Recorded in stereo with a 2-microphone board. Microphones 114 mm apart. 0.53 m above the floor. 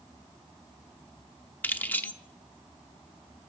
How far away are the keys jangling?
About 0.7 m.